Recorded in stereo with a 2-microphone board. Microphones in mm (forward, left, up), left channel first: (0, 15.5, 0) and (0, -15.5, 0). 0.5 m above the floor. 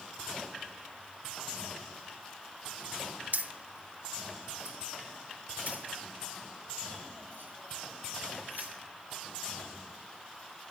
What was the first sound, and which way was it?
Keys jangling, 60° right (ahead or behind).